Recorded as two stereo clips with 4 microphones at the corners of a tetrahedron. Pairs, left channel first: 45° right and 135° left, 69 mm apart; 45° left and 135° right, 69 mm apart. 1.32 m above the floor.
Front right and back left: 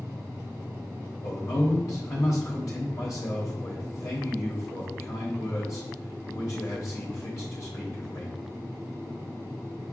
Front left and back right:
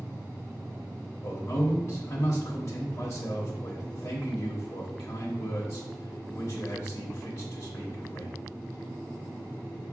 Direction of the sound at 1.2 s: Straight ahead.